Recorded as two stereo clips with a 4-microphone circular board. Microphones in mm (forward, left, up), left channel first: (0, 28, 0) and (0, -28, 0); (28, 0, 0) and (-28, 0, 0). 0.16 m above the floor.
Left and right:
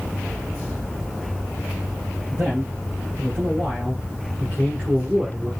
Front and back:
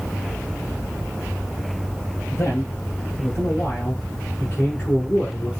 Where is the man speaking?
35° right, 3.5 m; by 5.5 s 25° right, 1.8 m.